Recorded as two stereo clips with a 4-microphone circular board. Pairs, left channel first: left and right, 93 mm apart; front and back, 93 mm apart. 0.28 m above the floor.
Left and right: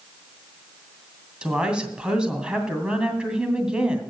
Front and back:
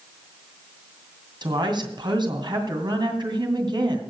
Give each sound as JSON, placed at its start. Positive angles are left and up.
{"t": 1.4, "sound": "a woman speaking", "azimuth_deg": -170, "distance_m": 2.5}